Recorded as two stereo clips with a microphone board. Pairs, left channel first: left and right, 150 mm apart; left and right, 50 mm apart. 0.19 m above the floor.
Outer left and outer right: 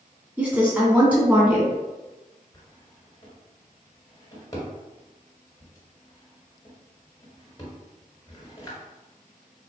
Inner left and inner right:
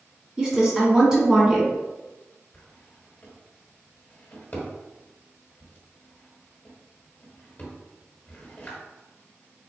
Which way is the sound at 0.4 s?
10° right (ahead or behind).